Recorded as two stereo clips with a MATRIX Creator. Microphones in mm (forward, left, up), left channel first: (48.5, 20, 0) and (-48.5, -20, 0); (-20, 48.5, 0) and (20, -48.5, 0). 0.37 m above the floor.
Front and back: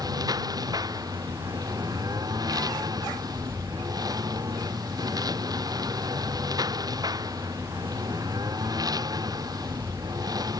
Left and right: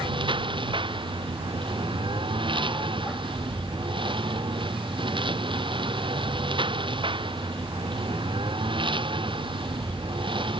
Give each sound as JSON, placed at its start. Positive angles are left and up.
{"t": 0.0, "sound": "a lawn mower", "azimuth_deg": -105}